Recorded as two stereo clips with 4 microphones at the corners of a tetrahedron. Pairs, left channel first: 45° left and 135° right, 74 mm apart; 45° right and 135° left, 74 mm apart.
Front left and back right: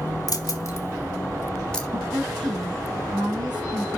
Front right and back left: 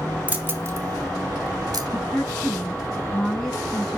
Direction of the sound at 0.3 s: 65° left.